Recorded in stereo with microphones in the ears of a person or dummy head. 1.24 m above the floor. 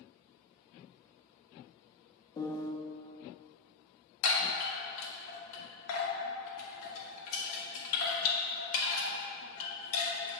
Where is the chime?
75° left (ahead or behind), 1.7 m.